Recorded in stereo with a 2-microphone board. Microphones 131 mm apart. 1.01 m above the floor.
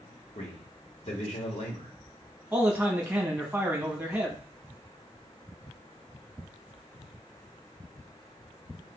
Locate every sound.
0.3 s a man speaking: 60° left (ahead or behind), 1.5 m
2.5 s a man speaking: 15° right (ahead or behind), 1.3 m